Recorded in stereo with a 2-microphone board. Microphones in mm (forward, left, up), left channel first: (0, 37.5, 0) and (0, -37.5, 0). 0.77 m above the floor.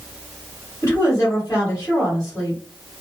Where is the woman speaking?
40° left (ahead or behind), 1.8 m.